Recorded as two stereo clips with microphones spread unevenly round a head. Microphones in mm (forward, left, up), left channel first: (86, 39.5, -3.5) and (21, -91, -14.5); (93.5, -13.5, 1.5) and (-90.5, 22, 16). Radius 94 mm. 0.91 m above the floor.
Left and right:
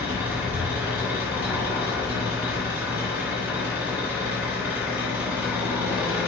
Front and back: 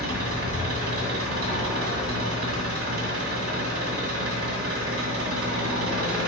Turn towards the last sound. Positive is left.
turn(degrees=160)